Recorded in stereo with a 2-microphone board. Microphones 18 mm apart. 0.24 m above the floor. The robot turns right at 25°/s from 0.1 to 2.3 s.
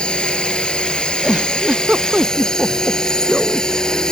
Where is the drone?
75° left; by 4.1 s 130° left.